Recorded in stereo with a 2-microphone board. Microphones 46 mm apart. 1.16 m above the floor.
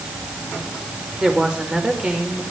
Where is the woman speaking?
25° right (ahead or behind), 4.5 m.